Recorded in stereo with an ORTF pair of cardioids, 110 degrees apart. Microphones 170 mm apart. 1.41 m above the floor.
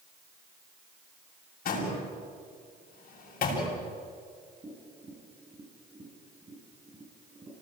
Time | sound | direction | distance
1.6 | a door slam | 55° left | 7.5 m
4.6 | tapping | 25° right | 8 m